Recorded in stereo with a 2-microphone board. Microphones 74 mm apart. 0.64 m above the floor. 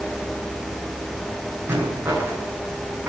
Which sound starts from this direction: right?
A rattle, at 1.7 s.